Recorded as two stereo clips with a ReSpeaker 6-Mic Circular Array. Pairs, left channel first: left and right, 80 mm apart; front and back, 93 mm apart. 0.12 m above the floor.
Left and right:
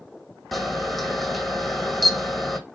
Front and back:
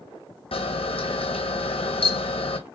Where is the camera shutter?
Straight ahead, 1.0 m.